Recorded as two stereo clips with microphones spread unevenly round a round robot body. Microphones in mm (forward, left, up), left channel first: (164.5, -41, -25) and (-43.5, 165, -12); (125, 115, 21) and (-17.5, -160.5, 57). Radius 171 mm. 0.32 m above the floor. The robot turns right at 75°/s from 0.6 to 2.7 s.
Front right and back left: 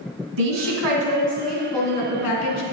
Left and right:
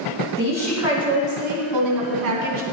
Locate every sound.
0.4 s a woman speaking: 140° left, 3 m; by 2.6 s 65° right, 3 m